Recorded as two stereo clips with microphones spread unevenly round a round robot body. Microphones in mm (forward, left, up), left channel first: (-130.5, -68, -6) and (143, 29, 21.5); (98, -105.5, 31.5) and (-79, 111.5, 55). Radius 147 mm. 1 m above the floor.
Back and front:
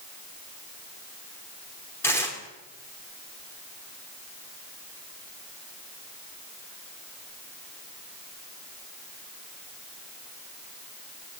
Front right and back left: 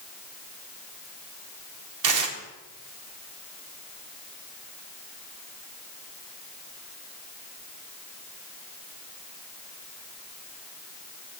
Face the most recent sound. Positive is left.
turn(degrees=120)